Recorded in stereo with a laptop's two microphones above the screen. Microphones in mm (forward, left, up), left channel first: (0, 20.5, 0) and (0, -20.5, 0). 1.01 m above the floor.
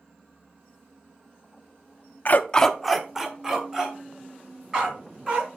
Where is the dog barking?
45° left (ahead or behind), 0.5 m; by 5.5 s 20° right (ahead or behind), 5 m.